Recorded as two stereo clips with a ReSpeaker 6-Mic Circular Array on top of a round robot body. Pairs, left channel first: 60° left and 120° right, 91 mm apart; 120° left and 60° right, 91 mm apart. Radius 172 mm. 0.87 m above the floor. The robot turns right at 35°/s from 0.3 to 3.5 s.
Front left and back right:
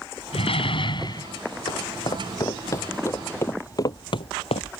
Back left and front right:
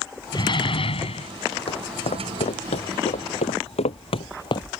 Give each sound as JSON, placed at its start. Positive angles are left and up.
{"t": 0.3, "sound": "a door slam", "azimuth_deg": 75}
{"t": 1.7, "sound": "footsteps", "azimuth_deg": 95}